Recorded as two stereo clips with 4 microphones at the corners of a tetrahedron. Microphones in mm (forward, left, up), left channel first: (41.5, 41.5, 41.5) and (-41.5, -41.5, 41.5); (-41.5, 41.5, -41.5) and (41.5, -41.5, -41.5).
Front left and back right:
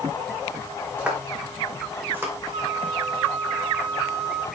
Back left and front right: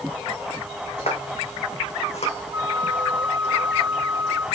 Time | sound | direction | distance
1.0 | footsteps | 145° left | 5 m
2.5 | a flute | 105° right | 4.5 m